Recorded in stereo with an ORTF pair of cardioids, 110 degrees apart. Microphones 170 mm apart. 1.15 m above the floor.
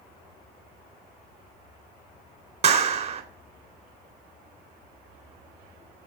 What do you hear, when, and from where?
2.6 s a clap: 40° right, 3.5 m